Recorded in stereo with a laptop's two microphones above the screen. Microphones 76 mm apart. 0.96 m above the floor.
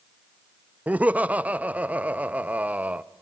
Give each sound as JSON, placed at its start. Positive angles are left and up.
{"t": 0.9, "sound": "laughter", "side_deg": -20, "distance_m": 0.6}